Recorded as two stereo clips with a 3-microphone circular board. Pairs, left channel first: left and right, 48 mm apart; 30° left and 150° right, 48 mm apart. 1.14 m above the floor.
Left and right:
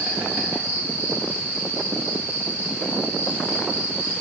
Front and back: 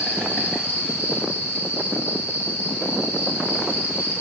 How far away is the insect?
About 8 m.